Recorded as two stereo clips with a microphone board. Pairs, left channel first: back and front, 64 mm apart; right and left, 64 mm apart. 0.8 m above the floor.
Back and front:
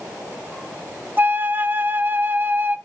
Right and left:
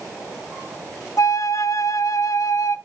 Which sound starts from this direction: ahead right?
A flute, at 1.2 s.